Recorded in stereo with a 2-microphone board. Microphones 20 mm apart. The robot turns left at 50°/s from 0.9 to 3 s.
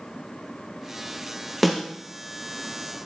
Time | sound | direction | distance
1.6 | a snare drum | centre (ahead or behind) | 1.8 m